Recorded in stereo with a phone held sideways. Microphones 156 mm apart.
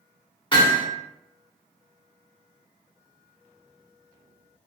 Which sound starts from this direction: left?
Hammering, at 0.5 s.